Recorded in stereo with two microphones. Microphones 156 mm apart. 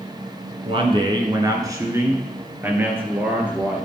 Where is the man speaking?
35° right (ahead or behind), 1.8 m; by 3.9 s 10° right (ahead or behind), 3.5 m.